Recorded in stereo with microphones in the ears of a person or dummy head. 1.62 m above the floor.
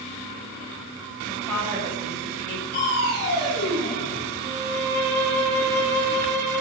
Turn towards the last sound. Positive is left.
turn(degrees=-55)  # may be behind; listen again after turning